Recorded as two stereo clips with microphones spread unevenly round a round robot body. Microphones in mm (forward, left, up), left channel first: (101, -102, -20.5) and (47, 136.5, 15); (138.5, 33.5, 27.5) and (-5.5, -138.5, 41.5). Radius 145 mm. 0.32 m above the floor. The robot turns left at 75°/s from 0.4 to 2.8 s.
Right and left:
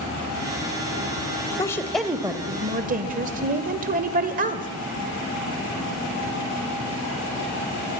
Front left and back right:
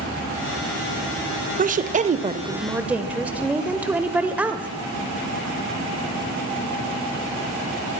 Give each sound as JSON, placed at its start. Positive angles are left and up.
{"t": 1.6, "sound": "a woman speaking", "azimuth_deg": -125, "distance_m": 1.1}